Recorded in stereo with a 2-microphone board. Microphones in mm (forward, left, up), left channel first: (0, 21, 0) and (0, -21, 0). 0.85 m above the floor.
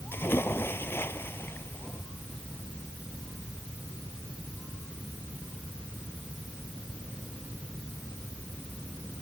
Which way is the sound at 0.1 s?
70° left (ahead or behind).